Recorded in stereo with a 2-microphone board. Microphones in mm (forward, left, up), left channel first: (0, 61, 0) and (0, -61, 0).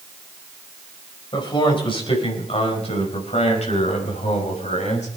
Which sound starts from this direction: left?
A man speaking, at 1.3 s.